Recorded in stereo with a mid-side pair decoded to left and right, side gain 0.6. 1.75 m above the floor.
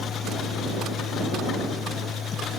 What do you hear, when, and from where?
0.0 s a machine running: 40° left